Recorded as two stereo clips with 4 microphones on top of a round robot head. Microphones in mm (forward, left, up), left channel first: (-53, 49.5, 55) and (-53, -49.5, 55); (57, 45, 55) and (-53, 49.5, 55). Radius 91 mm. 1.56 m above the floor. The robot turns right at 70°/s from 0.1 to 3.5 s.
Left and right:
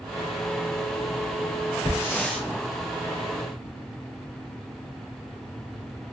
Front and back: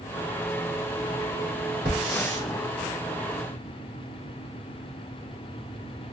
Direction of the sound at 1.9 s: 135° left.